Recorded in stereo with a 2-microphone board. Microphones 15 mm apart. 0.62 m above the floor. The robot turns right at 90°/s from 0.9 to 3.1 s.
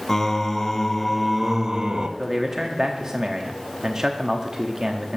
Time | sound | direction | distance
0.1 | singing | 160° left | 0.7 m
2.2 | a man speaking | 155° right | 1.0 m